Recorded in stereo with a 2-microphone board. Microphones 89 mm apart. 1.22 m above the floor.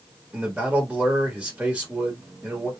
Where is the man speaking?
15° right (ahead or behind), 1.6 m.